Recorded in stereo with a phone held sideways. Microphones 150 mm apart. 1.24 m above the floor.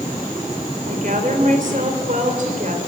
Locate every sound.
0.9 s a woman speaking: 60° right (ahead or behind), 4 m